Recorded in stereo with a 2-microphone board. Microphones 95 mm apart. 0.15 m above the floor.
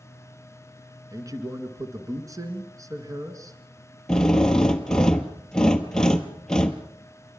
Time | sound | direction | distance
1.1 | a man speaking | 40° right (ahead or behind) | 2 m
4.1 | a drill | 10° left (ahead or behind) | 1.3 m